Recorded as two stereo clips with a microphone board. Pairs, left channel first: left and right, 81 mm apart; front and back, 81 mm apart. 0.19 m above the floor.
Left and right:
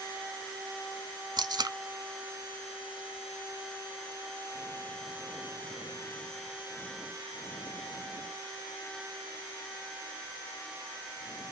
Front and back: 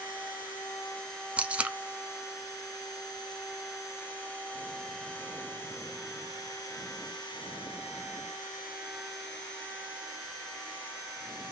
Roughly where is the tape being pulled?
Right.